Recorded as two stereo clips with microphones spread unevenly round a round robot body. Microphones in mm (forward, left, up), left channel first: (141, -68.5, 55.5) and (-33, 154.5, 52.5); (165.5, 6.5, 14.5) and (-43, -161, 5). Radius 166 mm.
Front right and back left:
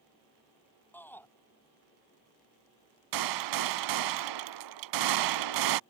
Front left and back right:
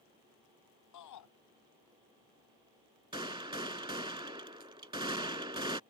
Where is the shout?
30° left.